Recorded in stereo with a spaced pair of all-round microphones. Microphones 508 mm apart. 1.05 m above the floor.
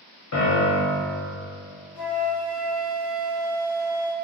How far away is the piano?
About 0.6 m.